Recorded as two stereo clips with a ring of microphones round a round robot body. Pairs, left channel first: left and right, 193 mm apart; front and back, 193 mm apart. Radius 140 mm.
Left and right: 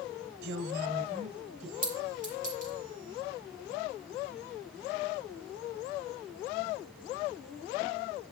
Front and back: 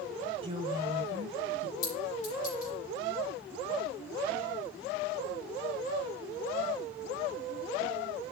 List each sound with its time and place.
0.4 s a woman speaking: 120° right, 1.8 m; by 1.7 s 155° right, 2 m
1.8 s a clink: 45° right, 6 m